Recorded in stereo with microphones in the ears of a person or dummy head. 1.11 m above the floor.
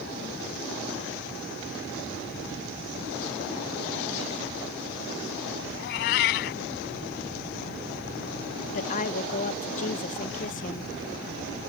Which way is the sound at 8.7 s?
40° left (ahead or behind).